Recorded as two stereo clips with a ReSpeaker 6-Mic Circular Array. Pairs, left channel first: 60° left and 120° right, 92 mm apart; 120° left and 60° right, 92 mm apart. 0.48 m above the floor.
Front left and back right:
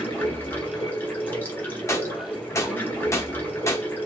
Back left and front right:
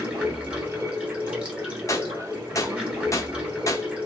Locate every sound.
0.0 s running water: 5° left, 0.9 m
1.9 s a gunshot: 95° left, 0.5 m